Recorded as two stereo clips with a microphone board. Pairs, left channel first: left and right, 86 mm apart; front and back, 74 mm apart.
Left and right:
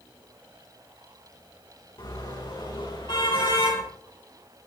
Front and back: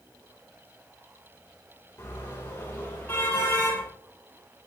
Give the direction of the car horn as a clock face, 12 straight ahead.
10 o'clock.